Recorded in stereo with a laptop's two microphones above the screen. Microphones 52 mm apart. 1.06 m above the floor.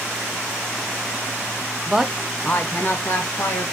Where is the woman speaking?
15° right (ahead or behind), 0.6 m; by 3.6 s 60° left (ahead or behind), 1.3 m.